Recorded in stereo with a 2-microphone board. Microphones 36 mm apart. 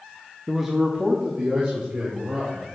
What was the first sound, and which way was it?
A man speaking, 5° right (ahead or behind).